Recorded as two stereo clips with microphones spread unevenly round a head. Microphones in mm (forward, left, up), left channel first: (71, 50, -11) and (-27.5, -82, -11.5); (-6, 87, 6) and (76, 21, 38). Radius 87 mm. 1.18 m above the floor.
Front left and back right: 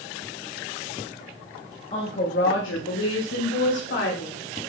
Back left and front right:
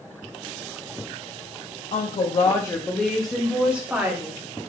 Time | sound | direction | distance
1.9 | a woman speaking | 115° left | 1.8 m